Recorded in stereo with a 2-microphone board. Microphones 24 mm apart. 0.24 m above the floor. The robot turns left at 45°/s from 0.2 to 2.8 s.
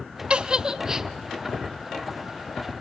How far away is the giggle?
About 0.6 m.